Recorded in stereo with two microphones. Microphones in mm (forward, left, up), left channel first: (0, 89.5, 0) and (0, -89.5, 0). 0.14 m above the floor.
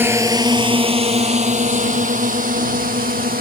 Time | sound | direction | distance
0.0 | a drone | 10° right (ahead or behind) | ?